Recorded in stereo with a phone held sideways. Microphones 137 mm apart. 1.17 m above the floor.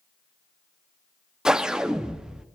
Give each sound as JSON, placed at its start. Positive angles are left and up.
{"t": 1.4, "sound": "a whoosh", "side_deg": -5, "distance_m": 0.6}